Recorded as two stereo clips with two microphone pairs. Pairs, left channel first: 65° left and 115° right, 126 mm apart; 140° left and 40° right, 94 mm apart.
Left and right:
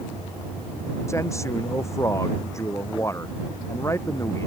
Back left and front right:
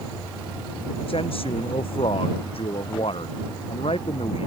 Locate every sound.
1.1 s a man speaking: 130° left